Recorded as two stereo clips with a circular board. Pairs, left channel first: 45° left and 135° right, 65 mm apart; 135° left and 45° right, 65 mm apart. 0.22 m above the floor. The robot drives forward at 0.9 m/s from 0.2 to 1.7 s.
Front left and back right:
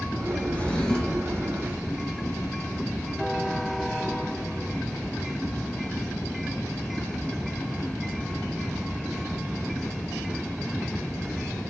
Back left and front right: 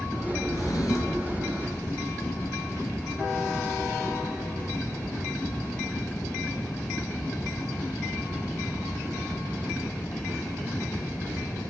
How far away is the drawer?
About 1.9 m.